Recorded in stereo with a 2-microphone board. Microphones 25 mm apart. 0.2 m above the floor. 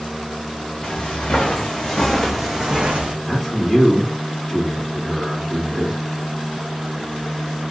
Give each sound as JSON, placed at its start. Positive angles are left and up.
{"t": 0.8, "sound": "footsteps", "side_deg": 40, "distance_m": 1.5}
{"t": 3.2, "sound": "a man speaking", "side_deg": 10, "distance_m": 1.7}